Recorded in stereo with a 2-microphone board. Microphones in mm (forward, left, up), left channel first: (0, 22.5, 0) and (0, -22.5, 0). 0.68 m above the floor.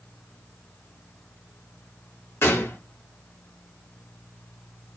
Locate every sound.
2.4 s a gunshot: 70° left (ahead or behind), 0.7 m